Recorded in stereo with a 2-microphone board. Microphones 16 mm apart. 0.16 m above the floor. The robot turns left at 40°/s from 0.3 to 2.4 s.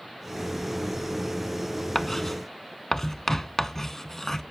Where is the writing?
15° left (ahead or behind), 0.6 m; by 4.4 s 25° left (ahead or behind), 0.6 m.